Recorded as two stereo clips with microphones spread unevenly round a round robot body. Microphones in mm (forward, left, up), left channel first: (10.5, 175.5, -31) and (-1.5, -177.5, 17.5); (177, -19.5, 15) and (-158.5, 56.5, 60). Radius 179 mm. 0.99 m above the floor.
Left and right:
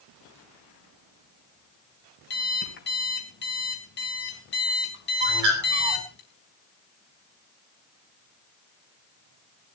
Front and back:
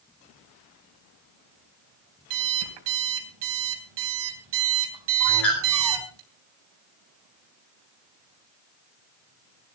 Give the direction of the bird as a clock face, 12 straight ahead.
3 o'clock.